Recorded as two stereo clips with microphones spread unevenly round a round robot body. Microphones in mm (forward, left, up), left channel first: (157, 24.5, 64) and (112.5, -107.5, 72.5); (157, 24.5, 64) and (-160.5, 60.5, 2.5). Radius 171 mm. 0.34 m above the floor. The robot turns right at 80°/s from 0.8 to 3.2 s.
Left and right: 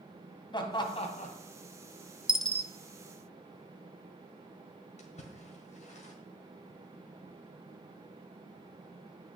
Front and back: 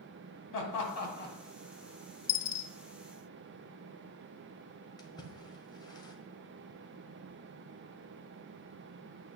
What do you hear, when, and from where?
0.5 s laughter: 20° left, 2.5 m; by 1.4 s 65° left, 2.5 m
2.3 s a dropped coin: 25° right, 0.7 m; by 2.7 s 10° left, 0.7 m
5.0 s a splash: 75° left, 1.6 m